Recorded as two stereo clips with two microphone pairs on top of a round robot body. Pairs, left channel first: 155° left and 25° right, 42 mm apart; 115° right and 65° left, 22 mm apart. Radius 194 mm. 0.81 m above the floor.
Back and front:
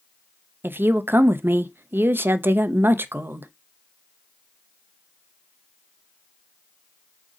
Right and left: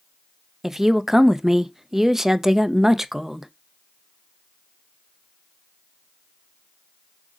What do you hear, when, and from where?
0.6 s a woman speaking: 5° right, 0.5 m